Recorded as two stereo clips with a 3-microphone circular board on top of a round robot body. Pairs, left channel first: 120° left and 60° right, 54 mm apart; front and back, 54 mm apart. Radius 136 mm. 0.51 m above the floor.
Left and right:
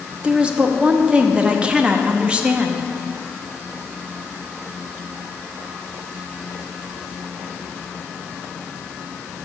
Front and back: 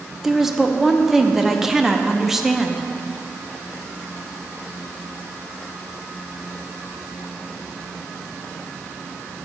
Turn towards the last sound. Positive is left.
turn(degrees=-100)